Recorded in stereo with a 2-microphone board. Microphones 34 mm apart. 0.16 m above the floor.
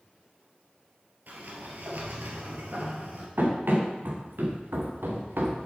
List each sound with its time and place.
1.3 s a sliding door: 60° right (ahead or behind), 2.5 m
3.4 s running footsteps: 65° right (ahead or behind), 3.5 m; by 5.7 s 85° right, 2.5 m